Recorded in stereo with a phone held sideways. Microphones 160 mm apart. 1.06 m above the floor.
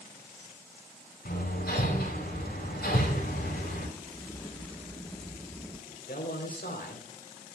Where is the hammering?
75° left (ahead or behind), 6.5 m.